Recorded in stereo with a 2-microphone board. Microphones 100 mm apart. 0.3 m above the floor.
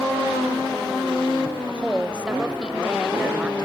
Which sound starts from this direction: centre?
A woman speaking, at 1.7 s.